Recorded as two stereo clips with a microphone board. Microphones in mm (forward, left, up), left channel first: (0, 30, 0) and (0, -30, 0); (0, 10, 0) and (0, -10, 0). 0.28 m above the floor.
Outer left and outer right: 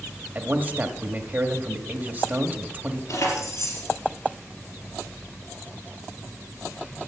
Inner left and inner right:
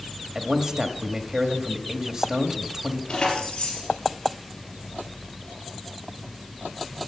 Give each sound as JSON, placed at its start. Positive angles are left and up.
{"t": 0.3, "sound": "a man speaking", "side_deg": -30, "distance_m": 1.1}
{"t": 3.1, "sound": "keys jangling", "side_deg": 65, "distance_m": 3.5}